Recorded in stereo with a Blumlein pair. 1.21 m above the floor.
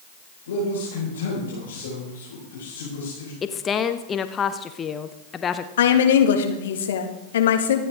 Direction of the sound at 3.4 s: 20° left.